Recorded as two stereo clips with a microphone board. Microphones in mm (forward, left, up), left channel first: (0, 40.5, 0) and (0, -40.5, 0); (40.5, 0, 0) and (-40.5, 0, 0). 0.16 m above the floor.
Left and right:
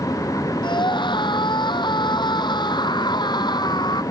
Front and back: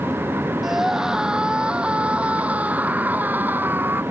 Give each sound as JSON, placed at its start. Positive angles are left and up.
{"t": 0.6, "sound": "a scream", "azimuth_deg": 95}